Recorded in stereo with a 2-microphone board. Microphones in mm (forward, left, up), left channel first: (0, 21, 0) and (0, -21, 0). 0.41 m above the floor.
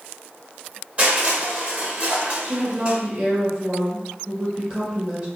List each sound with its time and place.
1.0 s crushing: 35° right (ahead or behind), 1.7 m
2.4 s a woman speaking: 25° right (ahead or behind), 1.6 m